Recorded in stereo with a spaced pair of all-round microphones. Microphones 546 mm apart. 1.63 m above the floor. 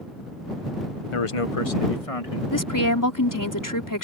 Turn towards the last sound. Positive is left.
turn(degrees=35)  # may be behind; listen again after turning